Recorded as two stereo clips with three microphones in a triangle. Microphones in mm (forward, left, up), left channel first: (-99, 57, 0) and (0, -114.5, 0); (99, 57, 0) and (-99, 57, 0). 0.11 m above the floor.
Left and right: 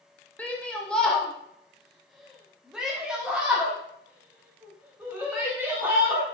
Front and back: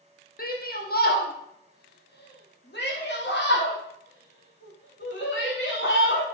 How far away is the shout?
About 3.5 m.